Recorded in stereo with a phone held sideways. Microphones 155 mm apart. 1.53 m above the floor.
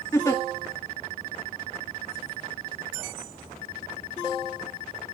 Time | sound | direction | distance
0.1 | a giggle | 20° left (ahead or behind) | 1.7 m